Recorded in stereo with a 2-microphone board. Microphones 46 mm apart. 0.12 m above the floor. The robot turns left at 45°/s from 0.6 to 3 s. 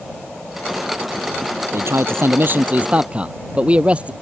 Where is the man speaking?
95° right; by 4.1 s 155° right.